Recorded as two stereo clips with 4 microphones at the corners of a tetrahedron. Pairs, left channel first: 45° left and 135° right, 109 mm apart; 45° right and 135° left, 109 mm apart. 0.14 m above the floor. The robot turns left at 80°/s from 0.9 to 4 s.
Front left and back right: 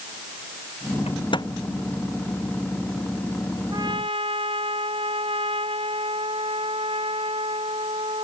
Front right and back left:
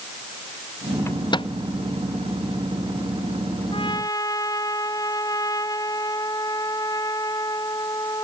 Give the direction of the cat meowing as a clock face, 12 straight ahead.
No cat meowing in this recording.